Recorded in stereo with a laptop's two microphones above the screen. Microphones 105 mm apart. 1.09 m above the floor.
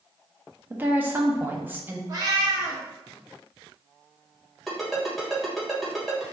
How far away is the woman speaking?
About 0.8 m.